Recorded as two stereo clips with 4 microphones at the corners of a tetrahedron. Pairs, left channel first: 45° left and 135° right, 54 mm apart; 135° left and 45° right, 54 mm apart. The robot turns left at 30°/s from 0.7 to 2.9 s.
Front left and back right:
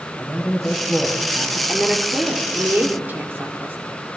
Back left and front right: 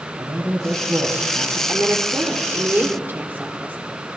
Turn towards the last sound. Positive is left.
turn(degrees=-90)